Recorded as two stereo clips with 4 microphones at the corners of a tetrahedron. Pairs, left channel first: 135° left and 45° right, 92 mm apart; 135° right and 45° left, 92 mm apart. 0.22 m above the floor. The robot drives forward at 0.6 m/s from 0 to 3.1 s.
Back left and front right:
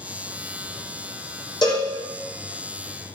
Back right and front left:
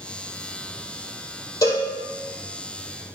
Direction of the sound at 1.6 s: 175° left.